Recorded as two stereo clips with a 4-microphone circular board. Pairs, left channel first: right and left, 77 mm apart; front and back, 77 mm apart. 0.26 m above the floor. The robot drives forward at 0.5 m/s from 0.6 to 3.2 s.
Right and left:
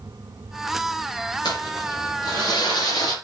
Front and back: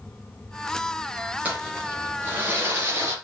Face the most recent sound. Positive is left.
turn(degrees=-120)